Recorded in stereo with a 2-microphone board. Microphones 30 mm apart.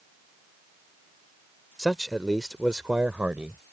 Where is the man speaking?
15° left (ahead or behind); by 3.6 s 60° right (ahead or behind).